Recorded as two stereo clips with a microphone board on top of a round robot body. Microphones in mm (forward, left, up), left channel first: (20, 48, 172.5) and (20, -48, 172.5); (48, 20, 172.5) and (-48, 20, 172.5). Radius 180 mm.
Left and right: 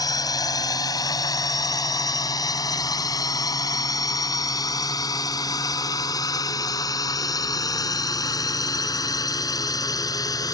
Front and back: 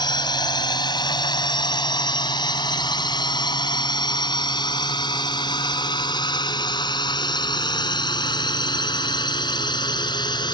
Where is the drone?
40° left.